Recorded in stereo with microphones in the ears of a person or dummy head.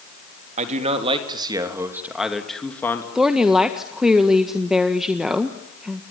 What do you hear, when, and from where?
0.6 s a man speaking: 40° right (ahead or behind), 3.5 m; by 3.0 s 15° left (ahead or behind), 3 m
3.1 s a woman speaking: 5° right (ahead or behind), 1.5 m